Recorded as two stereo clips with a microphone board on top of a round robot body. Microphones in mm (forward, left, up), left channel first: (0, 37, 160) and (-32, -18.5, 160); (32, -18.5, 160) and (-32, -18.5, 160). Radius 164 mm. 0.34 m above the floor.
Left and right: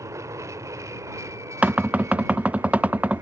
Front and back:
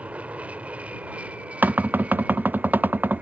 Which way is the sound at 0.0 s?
120° right.